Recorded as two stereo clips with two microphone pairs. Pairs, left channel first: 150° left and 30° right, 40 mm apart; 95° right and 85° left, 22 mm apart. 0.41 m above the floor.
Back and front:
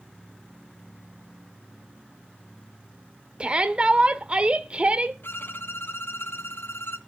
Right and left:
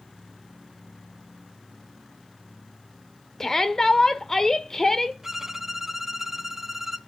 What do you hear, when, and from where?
3.4 s a shout: 50° right, 0.9 m
5.2 s a violin: 165° left, 1.1 m